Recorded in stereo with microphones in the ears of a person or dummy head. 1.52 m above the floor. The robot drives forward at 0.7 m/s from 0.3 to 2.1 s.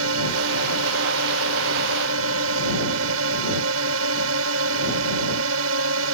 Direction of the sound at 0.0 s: 75° right (ahead or behind).